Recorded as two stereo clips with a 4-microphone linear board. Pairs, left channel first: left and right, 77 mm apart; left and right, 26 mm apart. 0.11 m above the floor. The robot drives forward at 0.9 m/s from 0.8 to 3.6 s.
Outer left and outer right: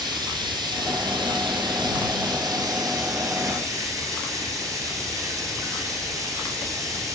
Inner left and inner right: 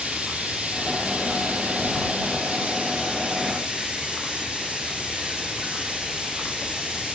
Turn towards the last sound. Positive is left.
turn(degrees=-45)  # may be behind; listen again after turning